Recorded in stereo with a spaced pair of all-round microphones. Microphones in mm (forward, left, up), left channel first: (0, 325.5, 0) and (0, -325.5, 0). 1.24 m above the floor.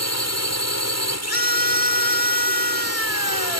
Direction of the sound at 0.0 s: 25° left (ahead or behind).